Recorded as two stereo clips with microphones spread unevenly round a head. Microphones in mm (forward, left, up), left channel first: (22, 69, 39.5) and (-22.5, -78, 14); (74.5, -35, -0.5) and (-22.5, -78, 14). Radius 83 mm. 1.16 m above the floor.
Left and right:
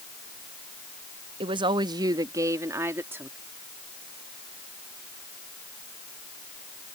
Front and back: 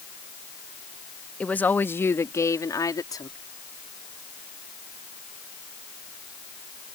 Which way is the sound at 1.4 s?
55° right.